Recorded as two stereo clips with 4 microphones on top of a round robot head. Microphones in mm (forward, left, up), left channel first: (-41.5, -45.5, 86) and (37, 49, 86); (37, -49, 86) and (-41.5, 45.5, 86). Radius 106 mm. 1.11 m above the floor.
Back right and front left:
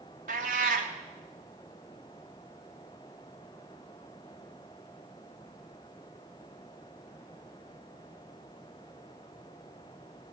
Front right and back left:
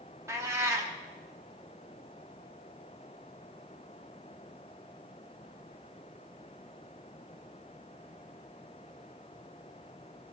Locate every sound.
0.3 s a cat meowing: 60° left, 0.5 m